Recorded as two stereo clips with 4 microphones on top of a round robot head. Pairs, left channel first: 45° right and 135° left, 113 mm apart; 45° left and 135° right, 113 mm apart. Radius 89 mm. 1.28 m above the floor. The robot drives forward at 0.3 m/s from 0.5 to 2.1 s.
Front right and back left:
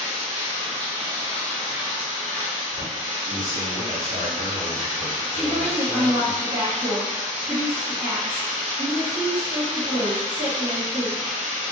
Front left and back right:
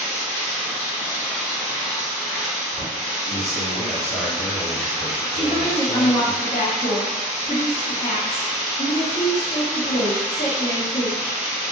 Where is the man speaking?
160° left, 1.8 m.